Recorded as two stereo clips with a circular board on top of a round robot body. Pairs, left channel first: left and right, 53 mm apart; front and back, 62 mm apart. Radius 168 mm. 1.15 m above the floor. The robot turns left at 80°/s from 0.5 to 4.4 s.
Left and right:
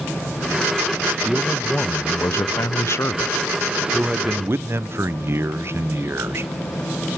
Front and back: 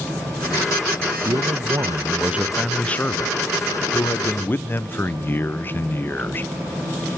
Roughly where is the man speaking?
Behind.